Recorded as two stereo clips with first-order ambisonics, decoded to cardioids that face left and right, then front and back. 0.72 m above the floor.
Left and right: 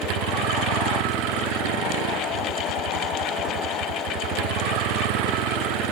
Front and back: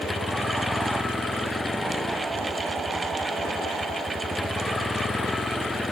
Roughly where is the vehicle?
Right.